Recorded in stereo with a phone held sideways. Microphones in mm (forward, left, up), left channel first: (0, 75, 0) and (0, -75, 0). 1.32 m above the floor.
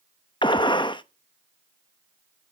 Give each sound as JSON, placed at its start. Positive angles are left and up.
{"t": 0.4, "sound": "a gunshot", "side_deg": 30, "distance_m": 0.7}